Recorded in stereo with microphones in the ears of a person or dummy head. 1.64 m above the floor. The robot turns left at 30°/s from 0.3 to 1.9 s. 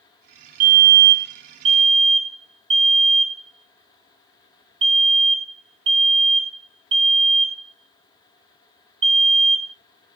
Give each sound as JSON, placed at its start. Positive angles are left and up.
{"t": 0.6, "sound": "a fire alarm", "side_deg": -45, "distance_m": 1.7}